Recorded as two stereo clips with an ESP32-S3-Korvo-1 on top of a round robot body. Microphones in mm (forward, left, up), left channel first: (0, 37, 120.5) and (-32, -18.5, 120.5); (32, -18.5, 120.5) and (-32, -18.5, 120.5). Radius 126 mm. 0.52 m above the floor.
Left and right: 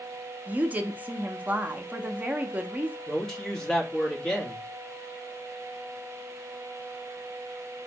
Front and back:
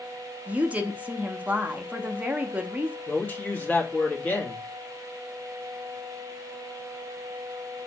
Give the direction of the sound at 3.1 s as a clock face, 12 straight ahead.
12 o'clock.